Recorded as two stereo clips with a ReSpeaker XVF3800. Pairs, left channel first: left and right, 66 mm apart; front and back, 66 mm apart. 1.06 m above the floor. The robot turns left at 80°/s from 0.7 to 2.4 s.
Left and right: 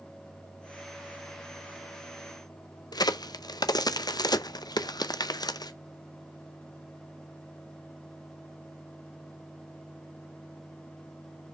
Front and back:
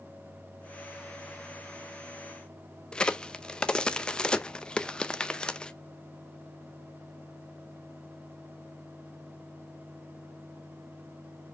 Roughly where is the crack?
Left.